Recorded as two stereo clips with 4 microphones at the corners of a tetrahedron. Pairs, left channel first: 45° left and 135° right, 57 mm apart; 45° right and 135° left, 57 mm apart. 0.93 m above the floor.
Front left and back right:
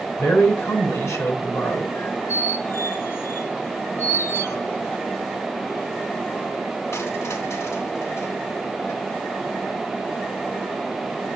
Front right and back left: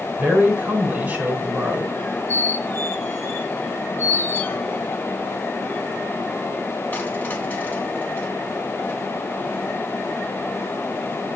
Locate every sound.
0.2 s a man speaking: 75° left, 4 m
1.9 s a squeak: 15° left, 2 m